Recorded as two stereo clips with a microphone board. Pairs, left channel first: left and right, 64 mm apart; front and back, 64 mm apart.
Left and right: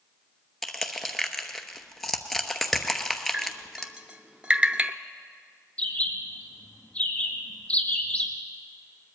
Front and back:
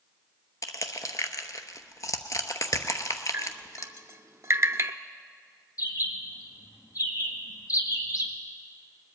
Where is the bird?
20° left, 1.7 m.